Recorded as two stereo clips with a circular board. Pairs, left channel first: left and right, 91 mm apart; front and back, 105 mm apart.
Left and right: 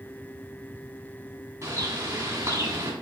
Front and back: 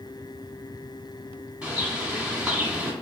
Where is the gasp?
No gasp in this recording.